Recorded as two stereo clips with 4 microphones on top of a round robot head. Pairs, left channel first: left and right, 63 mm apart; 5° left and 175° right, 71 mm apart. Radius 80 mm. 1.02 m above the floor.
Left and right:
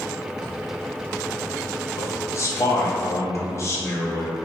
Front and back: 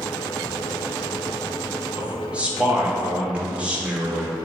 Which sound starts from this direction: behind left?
A man speaking, at 2.0 s.